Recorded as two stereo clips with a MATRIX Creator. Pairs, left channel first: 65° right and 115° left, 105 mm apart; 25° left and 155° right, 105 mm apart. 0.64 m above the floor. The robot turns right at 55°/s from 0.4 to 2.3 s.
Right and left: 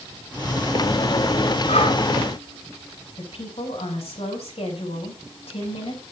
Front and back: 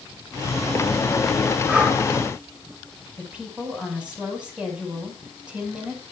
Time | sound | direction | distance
1.7 | breathing | 85° right | 3.5 m
3.2 | a woman speaking | 80° right | 5.5 m